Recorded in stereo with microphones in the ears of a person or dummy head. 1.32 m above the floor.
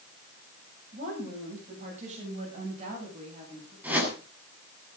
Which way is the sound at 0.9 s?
45° right (ahead or behind).